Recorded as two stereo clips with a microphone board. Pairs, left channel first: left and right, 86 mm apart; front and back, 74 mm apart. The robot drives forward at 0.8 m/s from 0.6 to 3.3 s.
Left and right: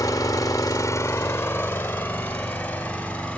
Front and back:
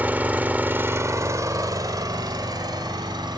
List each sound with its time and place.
0.0 s an engine running: 120° left, 0.8 m; by 3.4 s 170° left, 2.5 m